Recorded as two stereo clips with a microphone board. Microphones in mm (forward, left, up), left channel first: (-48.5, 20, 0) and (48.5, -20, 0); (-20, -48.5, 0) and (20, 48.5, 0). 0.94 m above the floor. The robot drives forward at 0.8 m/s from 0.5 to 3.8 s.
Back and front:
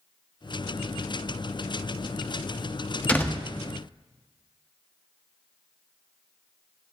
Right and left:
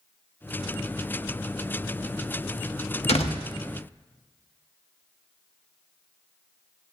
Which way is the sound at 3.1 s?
125° right.